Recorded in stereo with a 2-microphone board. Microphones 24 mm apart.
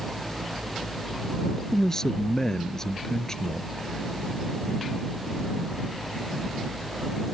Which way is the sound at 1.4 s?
25° left (ahead or behind).